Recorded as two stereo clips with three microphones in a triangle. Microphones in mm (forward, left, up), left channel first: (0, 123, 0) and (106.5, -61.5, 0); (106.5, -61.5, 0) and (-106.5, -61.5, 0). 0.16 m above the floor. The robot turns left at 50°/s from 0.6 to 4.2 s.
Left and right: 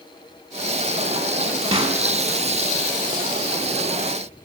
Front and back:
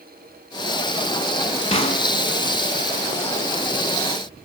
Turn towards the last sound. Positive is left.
turn(degrees=-155)